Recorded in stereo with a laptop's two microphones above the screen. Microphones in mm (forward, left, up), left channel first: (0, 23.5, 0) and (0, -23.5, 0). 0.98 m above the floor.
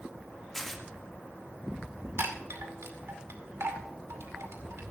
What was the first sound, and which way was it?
Tearing paper, 5° left (ahead or behind).